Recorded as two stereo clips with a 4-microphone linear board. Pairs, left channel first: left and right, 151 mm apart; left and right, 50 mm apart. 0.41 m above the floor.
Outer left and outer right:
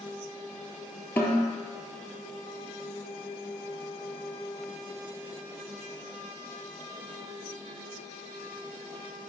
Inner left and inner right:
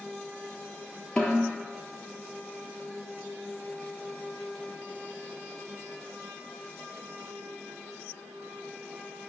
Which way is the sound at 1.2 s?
15° left (ahead or behind).